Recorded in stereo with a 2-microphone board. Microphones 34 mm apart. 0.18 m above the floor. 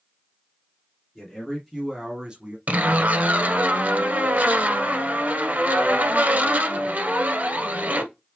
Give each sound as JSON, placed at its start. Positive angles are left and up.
{"t": 1.1, "sound": "a man speaking", "side_deg": 15, "distance_m": 2.0}
{"t": 2.7, "sound": "a zipper", "side_deg": -50, "distance_m": 1.3}